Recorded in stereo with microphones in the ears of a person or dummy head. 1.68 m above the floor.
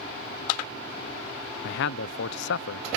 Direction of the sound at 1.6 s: 70° left (ahead or behind).